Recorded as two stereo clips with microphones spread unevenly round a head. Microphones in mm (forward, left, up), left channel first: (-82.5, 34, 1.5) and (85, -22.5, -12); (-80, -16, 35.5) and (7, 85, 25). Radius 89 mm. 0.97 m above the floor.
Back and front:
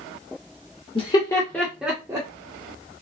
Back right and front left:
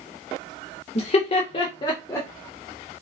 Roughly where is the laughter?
Behind right.